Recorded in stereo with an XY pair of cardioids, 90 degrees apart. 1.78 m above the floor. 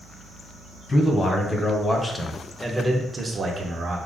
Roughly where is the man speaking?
Ahead left.